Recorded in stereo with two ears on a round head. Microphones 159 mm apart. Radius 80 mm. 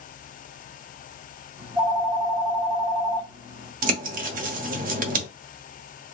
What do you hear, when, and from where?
1.6 s a phone ringing: 20° right (ahead or behind), 1.4 m
3.8 s a bird: 45° right (ahead or behind), 0.8 m